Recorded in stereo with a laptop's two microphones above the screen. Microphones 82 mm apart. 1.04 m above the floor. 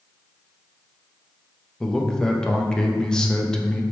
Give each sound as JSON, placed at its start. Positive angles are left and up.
{"t": 1.8, "sound": "a man speaking", "side_deg": 10, "distance_m": 0.8}